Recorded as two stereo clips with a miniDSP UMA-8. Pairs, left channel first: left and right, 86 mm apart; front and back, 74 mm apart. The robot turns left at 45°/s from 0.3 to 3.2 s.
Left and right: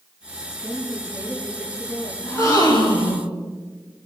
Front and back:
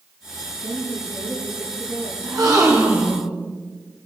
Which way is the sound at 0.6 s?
160° right.